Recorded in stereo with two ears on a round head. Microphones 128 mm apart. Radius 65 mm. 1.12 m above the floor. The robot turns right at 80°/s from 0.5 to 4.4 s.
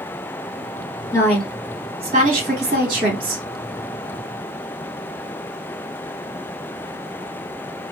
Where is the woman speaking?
160° left, 1.3 m; by 3.4 s 15° right, 1.3 m.